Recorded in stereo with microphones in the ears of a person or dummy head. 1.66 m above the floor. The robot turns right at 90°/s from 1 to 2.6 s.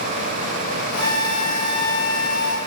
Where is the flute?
70° right, 0.8 m; by 2.6 s 70° left, 0.8 m.